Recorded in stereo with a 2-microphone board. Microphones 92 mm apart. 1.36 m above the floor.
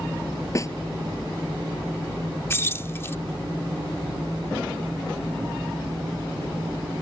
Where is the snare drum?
35° left (ahead or behind).